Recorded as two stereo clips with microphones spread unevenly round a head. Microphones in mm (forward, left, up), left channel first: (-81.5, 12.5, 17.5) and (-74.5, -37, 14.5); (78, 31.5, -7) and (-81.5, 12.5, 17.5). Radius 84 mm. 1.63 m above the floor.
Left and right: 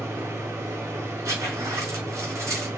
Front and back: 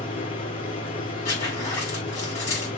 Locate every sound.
0.0 s a machine running: 55° right, 2.5 m
1.2 s a zipper: 70° right, 3.5 m